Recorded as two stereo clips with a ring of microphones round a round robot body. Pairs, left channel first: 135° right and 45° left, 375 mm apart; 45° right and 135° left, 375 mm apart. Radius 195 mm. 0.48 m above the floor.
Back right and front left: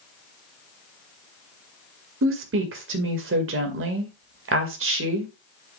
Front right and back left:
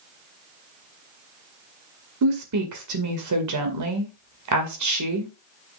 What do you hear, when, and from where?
2.2 s a woman speaking: 100° left, 2 m